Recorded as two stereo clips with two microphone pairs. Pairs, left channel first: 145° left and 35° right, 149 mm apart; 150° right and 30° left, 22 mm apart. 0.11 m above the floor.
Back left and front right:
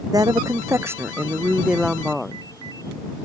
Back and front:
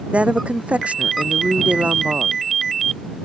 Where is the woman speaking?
30° left; by 2.4 s 60° left.